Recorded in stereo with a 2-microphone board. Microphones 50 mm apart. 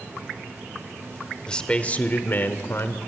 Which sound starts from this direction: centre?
A man speaking, at 1.5 s.